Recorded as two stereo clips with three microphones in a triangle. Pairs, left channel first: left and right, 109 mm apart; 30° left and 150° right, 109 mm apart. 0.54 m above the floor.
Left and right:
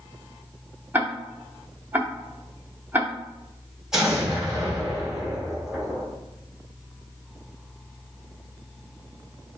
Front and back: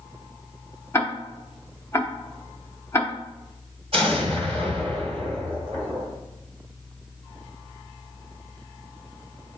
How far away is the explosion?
About 1.8 m.